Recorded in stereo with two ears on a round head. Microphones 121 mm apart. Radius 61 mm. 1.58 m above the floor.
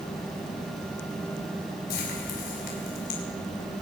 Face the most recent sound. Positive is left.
turn(degrees=70)  # may be behind; listen again after turning